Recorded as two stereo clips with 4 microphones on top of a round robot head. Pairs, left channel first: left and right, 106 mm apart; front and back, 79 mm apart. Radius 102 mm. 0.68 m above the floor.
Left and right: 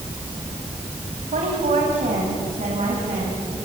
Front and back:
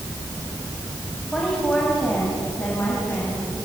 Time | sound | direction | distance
1.3 | a woman speaking | 85° right | 4 m